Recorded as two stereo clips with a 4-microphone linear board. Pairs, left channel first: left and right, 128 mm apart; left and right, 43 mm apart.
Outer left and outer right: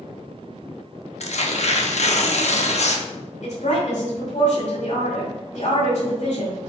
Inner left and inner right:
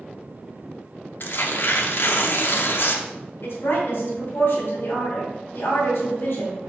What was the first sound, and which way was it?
Tearing paper, 60° left (ahead or behind).